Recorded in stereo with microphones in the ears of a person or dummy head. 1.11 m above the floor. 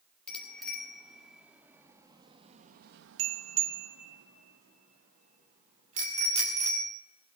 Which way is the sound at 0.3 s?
5° left (ahead or behind).